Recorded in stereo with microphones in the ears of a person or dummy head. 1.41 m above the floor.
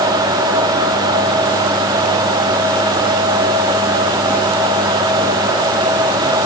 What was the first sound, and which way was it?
Only background noise.